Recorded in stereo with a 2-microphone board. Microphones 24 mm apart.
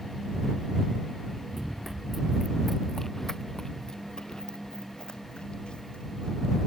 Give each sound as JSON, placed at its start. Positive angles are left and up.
{"t": 1.5, "sound": "running footsteps", "side_deg": -10}